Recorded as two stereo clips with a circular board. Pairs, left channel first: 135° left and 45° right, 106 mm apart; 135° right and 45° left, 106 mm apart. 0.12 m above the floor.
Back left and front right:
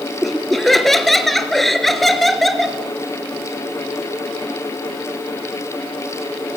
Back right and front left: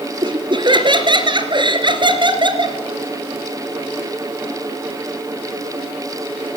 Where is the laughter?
45° left, 2.5 m.